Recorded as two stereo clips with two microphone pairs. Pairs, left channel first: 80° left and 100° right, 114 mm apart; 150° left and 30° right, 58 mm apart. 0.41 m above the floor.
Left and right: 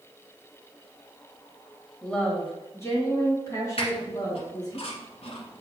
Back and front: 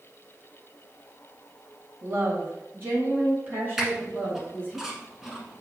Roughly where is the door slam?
No door slam in this recording.